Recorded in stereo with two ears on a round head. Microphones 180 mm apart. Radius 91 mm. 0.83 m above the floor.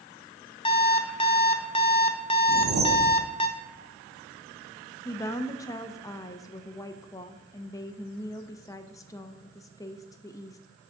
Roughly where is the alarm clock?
Left.